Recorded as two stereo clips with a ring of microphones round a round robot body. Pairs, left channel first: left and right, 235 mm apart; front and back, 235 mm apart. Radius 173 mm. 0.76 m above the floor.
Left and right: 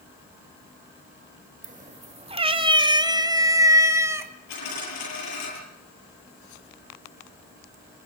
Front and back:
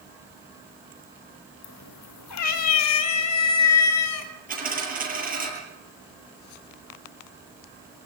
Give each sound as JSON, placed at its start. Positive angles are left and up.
{"t": 1.6, "sound": "a cat meowing", "azimuth_deg": -30, "distance_m": 1.3}
{"t": 4.5, "sound": "a dropped coin", "azimuth_deg": 125, "distance_m": 10.0}